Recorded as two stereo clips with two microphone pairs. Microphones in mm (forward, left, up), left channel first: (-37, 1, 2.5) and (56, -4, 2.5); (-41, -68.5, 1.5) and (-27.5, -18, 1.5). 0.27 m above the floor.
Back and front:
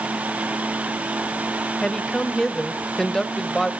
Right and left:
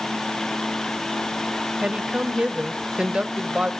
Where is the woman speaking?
105° left, 0.9 m.